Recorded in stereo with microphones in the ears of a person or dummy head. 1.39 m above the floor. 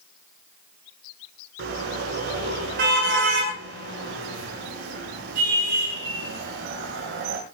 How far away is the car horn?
About 7.5 m.